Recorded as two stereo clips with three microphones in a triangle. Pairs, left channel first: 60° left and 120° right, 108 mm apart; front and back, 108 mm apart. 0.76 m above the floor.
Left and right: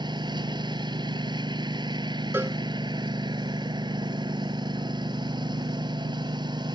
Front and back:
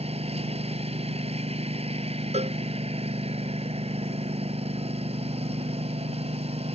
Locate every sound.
0.0 s a lawn mower: 165° right
2.3 s a cowbell: 170° left